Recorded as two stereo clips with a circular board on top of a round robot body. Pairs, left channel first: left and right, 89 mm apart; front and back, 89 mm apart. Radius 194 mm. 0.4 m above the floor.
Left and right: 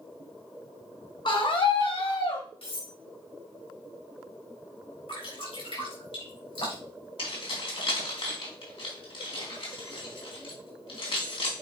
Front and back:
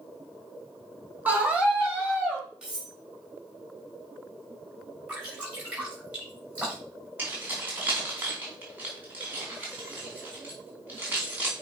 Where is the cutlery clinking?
100° left, 4 m.